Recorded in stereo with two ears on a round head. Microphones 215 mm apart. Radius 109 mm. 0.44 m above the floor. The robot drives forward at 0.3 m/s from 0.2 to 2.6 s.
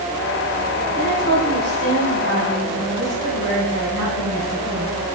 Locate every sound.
0.9 s a woman speaking: 60° right (ahead or behind), 2.5 m